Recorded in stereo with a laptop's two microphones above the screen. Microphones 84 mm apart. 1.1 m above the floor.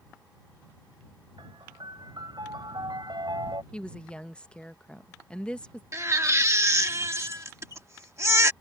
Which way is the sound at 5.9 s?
35° right (ahead or behind).